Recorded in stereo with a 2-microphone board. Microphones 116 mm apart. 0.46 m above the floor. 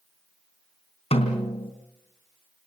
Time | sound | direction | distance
1.1 | a snare drum | 65° left (ahead or behind) | 3.5 m